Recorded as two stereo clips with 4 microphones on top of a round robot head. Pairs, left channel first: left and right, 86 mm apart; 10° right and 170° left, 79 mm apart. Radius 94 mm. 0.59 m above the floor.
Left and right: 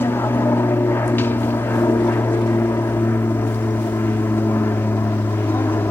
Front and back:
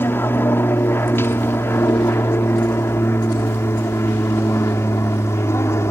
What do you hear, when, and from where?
0.0 s an aircraft: 40° left; by 5.9 s 30° left